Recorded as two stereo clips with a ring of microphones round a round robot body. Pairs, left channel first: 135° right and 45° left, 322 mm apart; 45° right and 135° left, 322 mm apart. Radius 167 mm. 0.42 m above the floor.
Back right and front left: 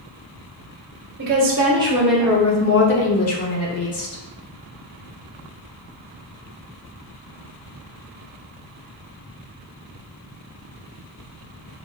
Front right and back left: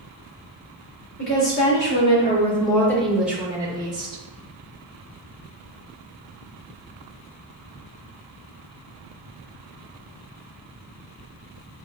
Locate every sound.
1.2 s a woman speaking: 5° right, 1.3 m; by 4.2 s 150° right, 1.8 m